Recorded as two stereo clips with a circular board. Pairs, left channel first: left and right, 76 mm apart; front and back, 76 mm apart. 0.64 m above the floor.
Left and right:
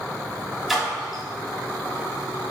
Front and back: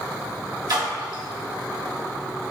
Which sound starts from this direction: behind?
A splash, at 0.7 s.